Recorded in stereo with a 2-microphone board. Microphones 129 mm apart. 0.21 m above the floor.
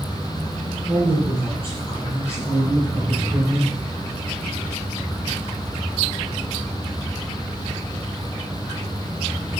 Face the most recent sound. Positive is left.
turn(degrees=-55)  # may be behind; listen again after turning